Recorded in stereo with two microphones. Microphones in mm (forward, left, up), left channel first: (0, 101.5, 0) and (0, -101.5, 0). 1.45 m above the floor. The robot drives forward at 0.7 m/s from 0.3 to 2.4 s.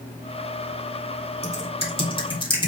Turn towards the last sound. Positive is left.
turn(degrees=25)  # may be behind; listen again after turning